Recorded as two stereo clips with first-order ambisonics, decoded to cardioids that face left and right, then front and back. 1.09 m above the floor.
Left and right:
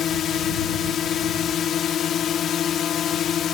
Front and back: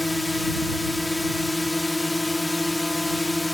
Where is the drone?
80° left.